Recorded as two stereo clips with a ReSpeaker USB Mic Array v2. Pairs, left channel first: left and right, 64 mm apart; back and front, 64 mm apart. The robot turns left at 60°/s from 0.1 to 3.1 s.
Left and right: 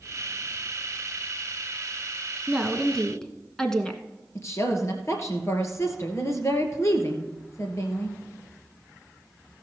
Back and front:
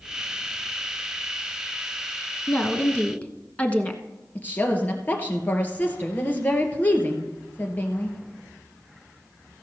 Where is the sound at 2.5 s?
165° right, 1.1 m; by 4.0 s 155° left, 1.1 m.